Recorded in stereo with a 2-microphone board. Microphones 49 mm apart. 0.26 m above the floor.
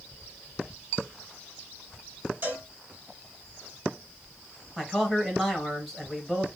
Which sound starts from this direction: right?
A cowbell, at 2.4 s.